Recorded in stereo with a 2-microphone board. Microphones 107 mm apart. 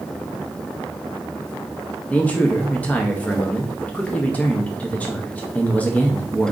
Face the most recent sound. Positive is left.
turn(degrees=15)  # may be behind; listen again after turning